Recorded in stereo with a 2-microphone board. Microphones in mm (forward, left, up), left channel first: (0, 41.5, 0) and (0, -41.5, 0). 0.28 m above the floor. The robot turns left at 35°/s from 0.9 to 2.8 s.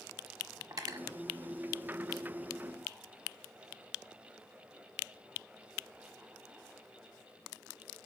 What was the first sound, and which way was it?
Cutlery clinking, 45° right (ahead or behind).